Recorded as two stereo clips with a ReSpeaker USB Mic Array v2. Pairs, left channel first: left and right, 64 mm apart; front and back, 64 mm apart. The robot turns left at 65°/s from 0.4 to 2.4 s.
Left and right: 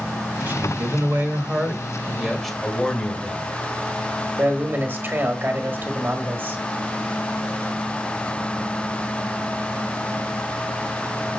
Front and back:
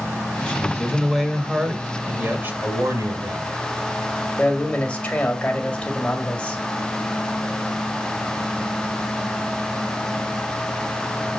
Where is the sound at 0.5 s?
55° right, 1.5 m; by 2.5 s 175° left, 1.5 m.